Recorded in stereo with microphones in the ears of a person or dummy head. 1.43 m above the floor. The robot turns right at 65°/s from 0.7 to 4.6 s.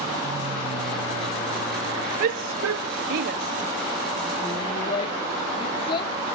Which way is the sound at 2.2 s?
50° right (ahead or behind).